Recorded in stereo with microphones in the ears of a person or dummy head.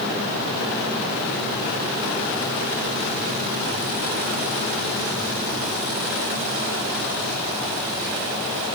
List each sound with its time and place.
Only background noise.